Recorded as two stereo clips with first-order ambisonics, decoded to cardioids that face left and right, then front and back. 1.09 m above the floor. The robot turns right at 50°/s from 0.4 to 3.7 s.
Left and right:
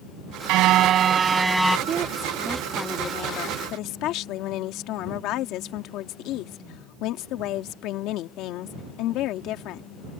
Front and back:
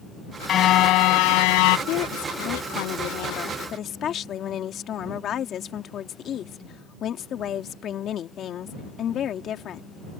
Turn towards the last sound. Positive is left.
turn(degrees=55)